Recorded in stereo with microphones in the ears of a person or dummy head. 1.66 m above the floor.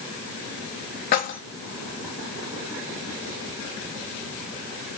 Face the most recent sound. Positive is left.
turn(degrees=50)  # may be behind; listen again after turning